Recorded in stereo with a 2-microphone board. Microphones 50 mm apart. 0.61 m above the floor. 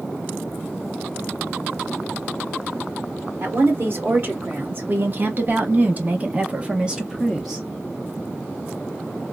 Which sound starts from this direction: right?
A woman speaking, at 3.4 s.